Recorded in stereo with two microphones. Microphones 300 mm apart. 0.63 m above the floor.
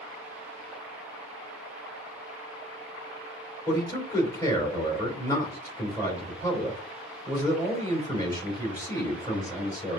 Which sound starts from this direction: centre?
A man speaking, at 3.7 s.